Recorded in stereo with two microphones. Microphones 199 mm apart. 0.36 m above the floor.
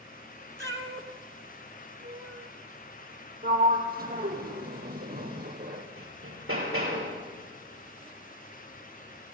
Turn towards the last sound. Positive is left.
turn(degrees=-85)